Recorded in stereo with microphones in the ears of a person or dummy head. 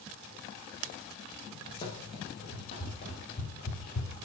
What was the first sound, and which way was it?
Running footsteps, 25° left (ahead or behind).